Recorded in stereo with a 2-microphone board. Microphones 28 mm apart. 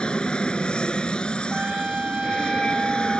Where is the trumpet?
40° right (ahead or behind).